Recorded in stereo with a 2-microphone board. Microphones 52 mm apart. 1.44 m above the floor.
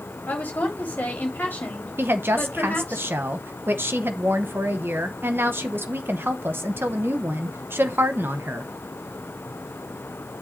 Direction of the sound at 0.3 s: 40° left (ahead or behind).